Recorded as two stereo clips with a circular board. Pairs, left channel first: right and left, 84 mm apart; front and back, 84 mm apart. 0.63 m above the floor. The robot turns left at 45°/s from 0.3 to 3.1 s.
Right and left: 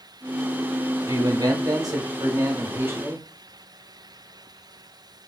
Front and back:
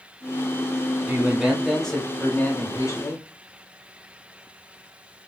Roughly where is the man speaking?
Behind left.